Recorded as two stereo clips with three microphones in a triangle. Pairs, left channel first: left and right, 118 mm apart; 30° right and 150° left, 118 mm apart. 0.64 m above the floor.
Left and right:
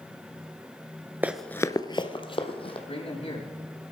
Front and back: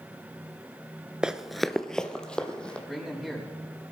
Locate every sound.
1.2 s running footsteps: 135° right, 0.6 m; by 2.8 s 50° left, 1.9 m
2.9 s a man speaking: 60° left, 5 m